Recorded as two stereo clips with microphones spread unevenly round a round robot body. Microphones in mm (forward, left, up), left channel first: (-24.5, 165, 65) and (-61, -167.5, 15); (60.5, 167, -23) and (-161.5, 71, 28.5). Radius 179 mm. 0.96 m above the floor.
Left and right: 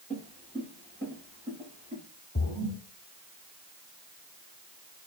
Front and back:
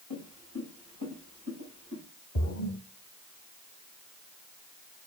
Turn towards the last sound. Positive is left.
turn(degrees=30)